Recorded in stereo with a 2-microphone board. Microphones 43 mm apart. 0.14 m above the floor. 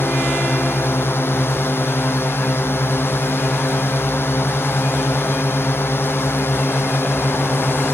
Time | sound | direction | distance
0.0 | a drone | 70° left (ahead or behind) | ?